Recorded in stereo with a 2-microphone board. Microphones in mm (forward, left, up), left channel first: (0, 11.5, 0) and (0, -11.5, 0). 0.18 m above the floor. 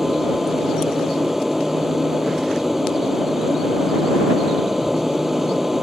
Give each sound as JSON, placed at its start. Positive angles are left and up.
{"t": 0.0, "sound": "an aircraft", "side_deg": -10}